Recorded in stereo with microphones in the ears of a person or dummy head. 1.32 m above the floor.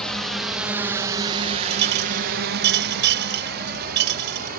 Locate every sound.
0.0 s a drone: 5° left (ahead or behind); by 4.6 s 55° right (ahead or behind)
1.7 s a clink: 60° right (ahead or behind)